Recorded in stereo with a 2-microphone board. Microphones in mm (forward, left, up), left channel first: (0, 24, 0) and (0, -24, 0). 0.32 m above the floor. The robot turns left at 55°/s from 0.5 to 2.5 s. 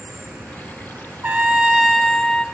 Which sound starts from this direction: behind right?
A trumpet, at 1.2 s.